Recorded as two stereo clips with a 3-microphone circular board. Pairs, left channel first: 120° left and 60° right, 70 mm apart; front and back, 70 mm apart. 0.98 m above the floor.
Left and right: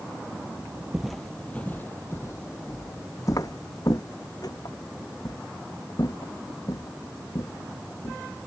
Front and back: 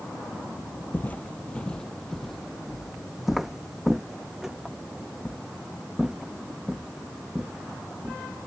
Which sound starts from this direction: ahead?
Footsteps, at 0.9 s.